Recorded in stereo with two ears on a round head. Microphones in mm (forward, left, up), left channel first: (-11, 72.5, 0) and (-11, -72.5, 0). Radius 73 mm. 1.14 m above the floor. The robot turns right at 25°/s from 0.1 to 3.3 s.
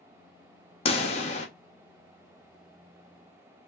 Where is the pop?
35° left (ahead or behind), 0.6 m; by 1.5 s 45° left (ahead or behind), 0.6 m.